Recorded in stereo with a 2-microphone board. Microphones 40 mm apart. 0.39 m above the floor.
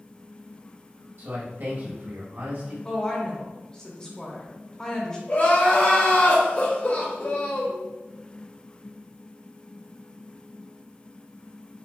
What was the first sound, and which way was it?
A man speaking, 60° right (ahead or behind).